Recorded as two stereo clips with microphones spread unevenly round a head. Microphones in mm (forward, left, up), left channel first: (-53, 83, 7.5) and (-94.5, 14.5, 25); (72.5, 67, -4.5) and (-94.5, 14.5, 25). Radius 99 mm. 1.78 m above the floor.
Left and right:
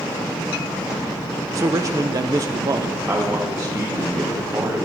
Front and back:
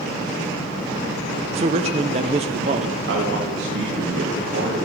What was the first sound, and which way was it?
A man speaking, 120° right.